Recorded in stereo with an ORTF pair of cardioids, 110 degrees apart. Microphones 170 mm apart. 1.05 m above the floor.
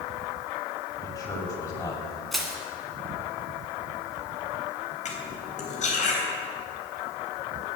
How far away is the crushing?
About 2.5 m.